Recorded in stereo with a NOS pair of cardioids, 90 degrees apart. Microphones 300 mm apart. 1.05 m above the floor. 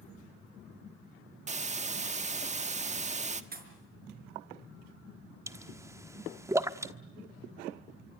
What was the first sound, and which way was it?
A hiss, 25° right.